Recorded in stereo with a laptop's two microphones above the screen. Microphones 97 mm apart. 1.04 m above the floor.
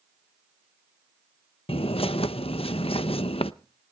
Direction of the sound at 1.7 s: 75° left (ahead or behind).